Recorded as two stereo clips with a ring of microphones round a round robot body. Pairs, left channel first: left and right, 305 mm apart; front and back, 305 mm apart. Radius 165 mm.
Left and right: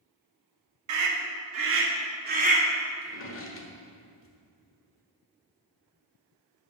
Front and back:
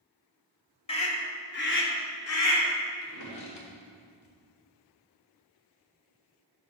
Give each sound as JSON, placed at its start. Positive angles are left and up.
{"t": 0.9, "sound": "a scream", "azimuth_deg": -70, "distance_m": 2.0}
{"t": 3.0, "sound": "a drawer", "azimuth_deg": 40, "distance_m": 1.5}